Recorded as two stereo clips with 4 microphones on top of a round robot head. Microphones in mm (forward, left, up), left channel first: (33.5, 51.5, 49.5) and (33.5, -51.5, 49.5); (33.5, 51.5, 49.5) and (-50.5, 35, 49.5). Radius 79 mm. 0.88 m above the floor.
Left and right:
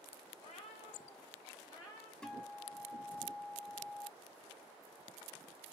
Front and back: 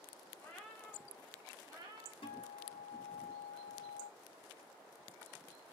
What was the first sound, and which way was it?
A cat meowing, 70° left.